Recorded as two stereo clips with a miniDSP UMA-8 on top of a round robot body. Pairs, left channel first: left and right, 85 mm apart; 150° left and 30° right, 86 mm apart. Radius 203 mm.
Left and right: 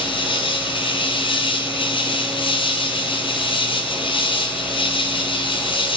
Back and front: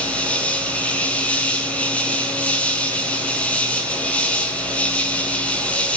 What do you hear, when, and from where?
0.0 s an insect: 75° left, 1.0 m